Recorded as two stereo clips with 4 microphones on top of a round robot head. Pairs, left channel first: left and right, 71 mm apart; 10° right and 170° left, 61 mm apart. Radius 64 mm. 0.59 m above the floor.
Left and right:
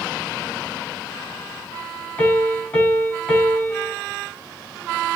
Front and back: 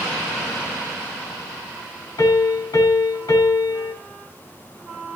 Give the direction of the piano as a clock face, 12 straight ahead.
11 o'clock.